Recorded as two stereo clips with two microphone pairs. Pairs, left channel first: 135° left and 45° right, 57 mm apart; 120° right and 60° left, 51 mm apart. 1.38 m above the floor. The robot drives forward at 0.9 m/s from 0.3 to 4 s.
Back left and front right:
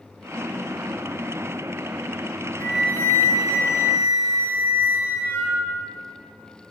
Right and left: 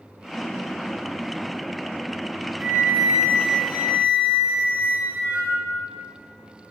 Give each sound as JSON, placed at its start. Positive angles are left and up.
{"t": 2.6, "sound": "a flute", "azimuth_deg": 95, "distance_m": 4.5}